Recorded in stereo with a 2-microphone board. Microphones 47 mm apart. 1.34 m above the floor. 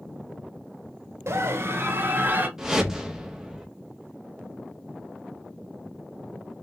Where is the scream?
70° right (ahead or behind), 1.0 m; by 2.5 s 40° right (ahead or behind), 1.4 m.